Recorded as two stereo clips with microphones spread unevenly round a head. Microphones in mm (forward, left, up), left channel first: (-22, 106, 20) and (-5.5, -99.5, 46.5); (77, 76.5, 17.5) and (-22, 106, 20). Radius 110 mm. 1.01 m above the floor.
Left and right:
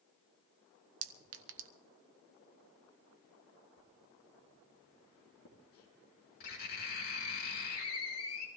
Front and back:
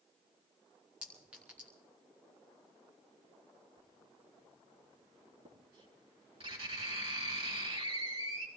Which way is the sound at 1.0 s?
110° right.